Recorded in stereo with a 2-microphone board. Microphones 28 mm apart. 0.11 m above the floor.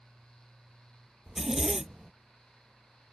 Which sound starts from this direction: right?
A zipper, at 1.3 s.